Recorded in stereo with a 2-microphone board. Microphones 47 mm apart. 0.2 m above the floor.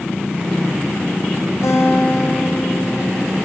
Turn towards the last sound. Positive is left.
turn(degrees=75)  # may be behind; listen again after turning